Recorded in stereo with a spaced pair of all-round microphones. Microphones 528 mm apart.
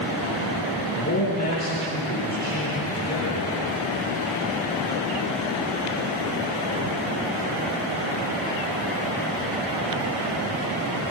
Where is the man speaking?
30° left (ahead or behind), 8.5 m.